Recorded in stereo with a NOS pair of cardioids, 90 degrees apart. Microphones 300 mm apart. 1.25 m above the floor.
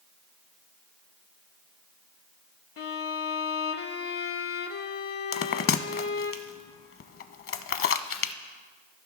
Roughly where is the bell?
Ahead left.